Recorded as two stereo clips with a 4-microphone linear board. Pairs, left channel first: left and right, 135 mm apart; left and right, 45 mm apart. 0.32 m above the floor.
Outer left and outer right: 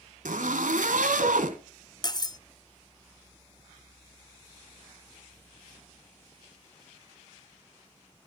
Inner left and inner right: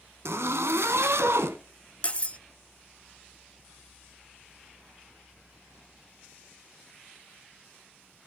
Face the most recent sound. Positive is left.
turn(degrees=30)  # may be behind; listen again after turning